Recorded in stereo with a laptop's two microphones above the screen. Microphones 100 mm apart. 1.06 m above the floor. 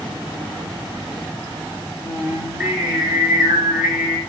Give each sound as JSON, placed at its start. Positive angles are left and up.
{"t": 2.0, "sound": "singing", "side_deg": -10, "distance_m": 5.5}